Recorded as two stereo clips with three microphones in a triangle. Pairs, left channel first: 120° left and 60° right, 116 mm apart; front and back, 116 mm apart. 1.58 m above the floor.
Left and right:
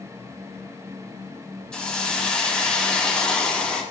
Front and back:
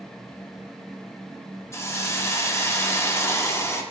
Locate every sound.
1.7 s a hiss: 45° left, 0.8 m